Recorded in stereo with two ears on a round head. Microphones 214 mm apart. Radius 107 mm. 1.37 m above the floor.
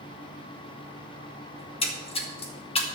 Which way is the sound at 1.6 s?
25° left (ahead or behind).